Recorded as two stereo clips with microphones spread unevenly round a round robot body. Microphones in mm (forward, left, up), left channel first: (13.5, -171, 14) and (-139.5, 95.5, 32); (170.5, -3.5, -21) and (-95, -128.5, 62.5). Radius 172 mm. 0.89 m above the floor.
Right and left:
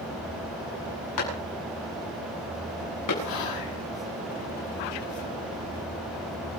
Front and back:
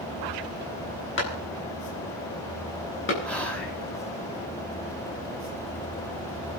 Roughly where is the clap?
Ahead right.